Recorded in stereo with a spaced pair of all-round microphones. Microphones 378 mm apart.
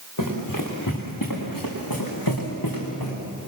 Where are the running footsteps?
60° left (ahead or behind), 6 m; by 3.2 s 75° left (ahead or behind), 6 m.